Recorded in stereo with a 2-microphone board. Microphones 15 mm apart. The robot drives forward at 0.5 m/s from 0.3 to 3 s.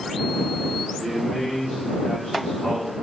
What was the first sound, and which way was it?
A man speaking, 55° left (ahead or behind).